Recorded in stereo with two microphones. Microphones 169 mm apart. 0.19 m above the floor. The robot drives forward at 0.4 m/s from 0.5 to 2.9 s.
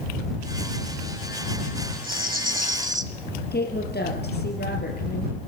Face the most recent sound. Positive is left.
turn(degrees=75)  # may be behind; listen again after turning